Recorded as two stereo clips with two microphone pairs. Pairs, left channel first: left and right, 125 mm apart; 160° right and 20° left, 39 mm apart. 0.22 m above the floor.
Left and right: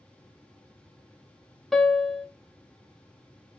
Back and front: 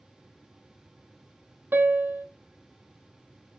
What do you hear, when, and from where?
1.7 s a piano: straight ahead, 0.6 m